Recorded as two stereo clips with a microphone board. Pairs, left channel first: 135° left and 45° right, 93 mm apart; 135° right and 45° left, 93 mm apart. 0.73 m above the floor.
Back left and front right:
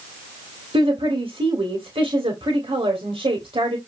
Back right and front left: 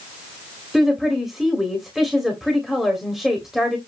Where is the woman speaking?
40° right, 2.5 m.